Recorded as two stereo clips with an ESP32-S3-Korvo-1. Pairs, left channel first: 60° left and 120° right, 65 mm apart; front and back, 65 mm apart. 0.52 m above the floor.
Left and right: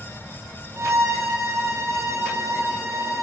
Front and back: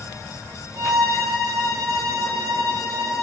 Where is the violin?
165° right, 2.0 m.